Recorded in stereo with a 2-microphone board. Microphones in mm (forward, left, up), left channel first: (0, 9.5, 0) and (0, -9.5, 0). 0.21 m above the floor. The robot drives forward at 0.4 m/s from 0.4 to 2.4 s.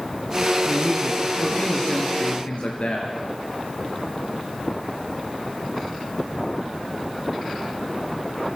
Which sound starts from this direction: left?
A man speaking, at 0.7 s.